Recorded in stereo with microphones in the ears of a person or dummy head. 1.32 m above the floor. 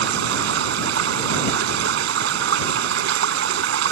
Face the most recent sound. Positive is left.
turn(degrees=-70)  # may be behind; listen again after turning